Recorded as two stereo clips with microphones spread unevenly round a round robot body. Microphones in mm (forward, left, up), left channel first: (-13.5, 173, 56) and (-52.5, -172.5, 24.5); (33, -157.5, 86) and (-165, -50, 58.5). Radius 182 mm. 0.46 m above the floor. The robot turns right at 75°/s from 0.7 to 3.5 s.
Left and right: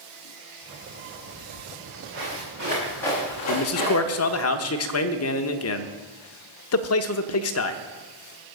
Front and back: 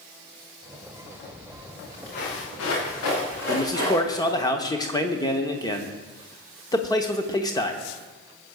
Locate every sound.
1.3 s footsteps: 140° right, 7.5 m; by 4.5 s 40° left, 7.5 m
3.5 s a man speaking: 45° left, 1.0 m